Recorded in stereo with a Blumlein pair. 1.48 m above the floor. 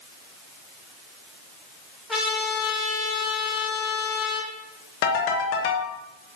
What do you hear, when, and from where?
2.1 s a trumpet: straight ahead, 2.5 m
5.0 s a ringtone: 45° left, 1.3 m